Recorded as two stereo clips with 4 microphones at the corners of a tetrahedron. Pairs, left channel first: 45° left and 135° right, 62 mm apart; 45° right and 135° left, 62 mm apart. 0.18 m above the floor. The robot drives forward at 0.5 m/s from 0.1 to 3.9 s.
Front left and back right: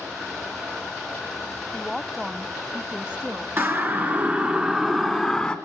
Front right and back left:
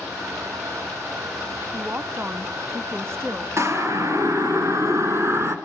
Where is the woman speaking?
120° left, 1.0 m; by 3.5 s 160° left, 1.5 m.